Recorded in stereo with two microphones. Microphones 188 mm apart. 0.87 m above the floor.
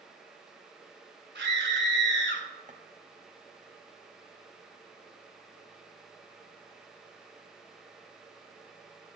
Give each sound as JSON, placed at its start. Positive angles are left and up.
{"t": 1.4, "sound": "a scream", "side_deg": -75, "distance_m": 3.0}
{"t": 2.7, "sound": "footsteps", "side_deg": -40, "distance_m": 1.2}